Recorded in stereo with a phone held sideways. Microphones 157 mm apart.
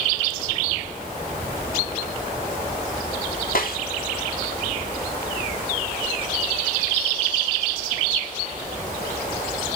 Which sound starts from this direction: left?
A snare drum, at 3.5 s.